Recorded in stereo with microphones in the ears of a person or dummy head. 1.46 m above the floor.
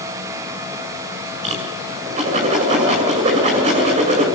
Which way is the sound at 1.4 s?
35° right (ahead or behind).